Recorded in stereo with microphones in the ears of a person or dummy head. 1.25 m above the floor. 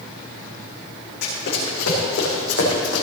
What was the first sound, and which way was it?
Running footsteps, 75° left (ahead or behind).